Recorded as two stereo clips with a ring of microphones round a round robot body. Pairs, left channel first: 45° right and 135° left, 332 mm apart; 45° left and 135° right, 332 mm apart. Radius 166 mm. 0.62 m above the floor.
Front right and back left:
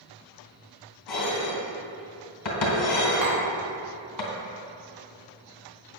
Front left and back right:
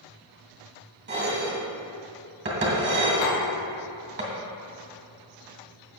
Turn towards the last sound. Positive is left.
turn(degrees=110)